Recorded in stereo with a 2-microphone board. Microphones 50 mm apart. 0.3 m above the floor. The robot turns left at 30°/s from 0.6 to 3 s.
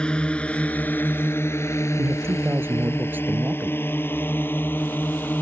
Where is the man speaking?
105° right; by 3.8 s 135° right.